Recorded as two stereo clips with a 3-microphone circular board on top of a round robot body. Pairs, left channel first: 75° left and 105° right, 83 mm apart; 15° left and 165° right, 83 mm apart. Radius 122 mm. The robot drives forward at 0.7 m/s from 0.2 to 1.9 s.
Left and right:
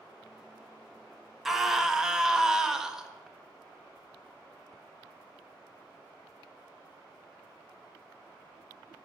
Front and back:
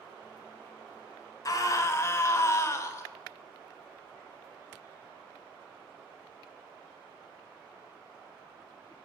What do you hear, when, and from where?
1.4 s a scream: 20° right, 1.4 m; by 3.1 s 25° right, 1.2 m